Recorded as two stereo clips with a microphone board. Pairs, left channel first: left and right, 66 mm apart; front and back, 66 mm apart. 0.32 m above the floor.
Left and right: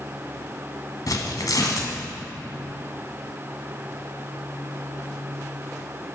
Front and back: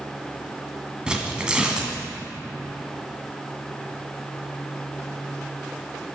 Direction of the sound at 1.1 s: 105° left.